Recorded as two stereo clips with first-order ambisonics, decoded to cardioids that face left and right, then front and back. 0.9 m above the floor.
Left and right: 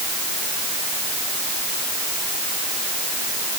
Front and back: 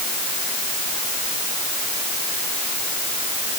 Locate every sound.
Only background noise.